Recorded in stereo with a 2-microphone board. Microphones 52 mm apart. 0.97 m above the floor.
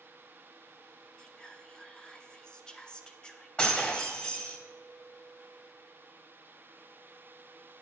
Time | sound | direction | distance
1.2 | whispering | 15° left (ahead or behind) | 0.6 m
3.6 | breaking glass | 25° left (ahead or behind) | 1.4 m